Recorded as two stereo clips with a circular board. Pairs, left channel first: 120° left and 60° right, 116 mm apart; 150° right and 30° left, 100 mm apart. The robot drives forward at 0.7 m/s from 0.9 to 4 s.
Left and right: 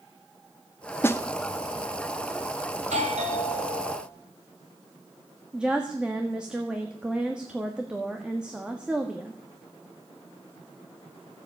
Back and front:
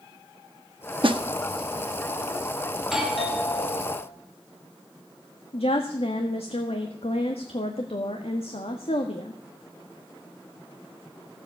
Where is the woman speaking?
140° right, 1.5 m.